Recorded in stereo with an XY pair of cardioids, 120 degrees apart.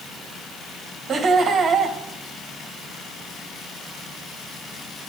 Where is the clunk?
No clunk in this recording.